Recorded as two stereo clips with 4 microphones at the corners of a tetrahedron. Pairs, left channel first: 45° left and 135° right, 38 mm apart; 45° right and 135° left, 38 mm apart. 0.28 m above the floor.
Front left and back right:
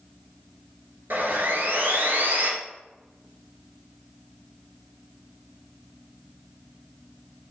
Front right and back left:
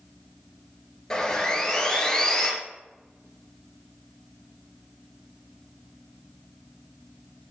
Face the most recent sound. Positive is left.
turn(degrees=-120)